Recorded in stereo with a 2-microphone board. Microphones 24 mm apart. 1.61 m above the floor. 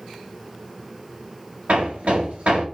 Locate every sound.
1.7 s hammering: 75° right (ahead or behind), 4.5 m